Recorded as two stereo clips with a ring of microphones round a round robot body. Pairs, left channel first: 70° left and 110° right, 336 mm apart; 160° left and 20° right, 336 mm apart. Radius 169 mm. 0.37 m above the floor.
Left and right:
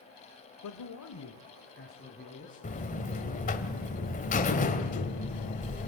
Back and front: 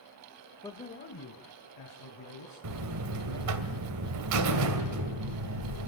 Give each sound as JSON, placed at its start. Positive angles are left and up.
{"t": 0.6, "sound": "a man speaking", "azimuth_deg": 80, "distance_m": 1.3}
{"t": 2.6, "sound": "a buzzer", "azimuth_deg": 5, "distance_m": 2.0}